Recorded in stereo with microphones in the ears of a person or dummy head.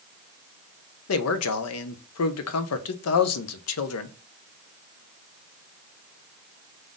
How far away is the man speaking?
About 0.6 m.